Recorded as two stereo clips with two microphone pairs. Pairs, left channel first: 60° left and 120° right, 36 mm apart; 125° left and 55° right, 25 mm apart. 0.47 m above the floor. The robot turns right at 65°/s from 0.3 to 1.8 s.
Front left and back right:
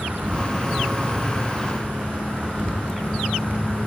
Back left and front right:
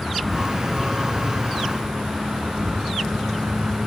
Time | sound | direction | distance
0.0 | an insect | 155° right | 3.5 m